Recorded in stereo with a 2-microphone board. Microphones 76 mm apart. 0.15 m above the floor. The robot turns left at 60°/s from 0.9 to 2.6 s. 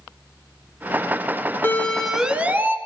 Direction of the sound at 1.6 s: 25° left (ahead or behind).